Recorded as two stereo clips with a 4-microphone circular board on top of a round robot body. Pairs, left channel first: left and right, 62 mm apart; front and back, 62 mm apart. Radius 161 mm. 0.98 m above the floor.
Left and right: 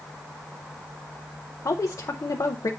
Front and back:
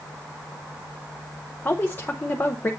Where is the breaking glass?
I don't hear breaking glass.